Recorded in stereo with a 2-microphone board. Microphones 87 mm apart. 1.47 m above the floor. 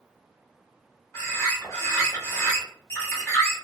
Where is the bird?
30° left (ahead or behind), 1.2 m.